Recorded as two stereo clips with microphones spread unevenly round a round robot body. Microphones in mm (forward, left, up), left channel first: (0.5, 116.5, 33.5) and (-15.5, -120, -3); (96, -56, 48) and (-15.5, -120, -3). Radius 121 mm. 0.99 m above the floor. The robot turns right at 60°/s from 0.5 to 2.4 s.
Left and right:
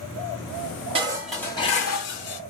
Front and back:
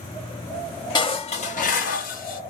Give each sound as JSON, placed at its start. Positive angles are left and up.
{"t": 0.9, "sound": "dishes clattering", "azimuth_deg": -25, "distance_m": 1.2}